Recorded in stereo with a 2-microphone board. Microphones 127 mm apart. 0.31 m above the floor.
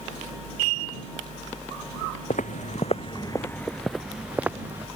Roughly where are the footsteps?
Left.